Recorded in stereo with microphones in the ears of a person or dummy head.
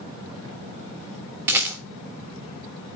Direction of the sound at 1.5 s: 10° right (ahead or behind).